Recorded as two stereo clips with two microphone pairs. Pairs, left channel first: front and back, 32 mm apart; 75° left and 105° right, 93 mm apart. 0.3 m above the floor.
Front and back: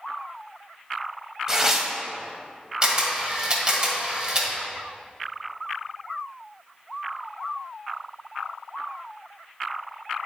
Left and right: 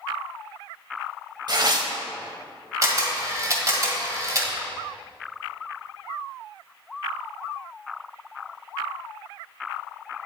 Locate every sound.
1.5 s tearing paper: 105° right, 0.7 m
2.8 s a camera shutter: 130° right, 1.4 m